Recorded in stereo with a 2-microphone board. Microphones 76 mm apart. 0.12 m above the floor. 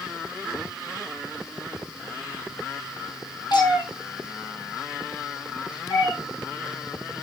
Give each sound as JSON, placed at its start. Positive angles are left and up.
{"t": 3.5, "sound": "a cat meowing", "side_deg": 70, "distance_m": 1.4}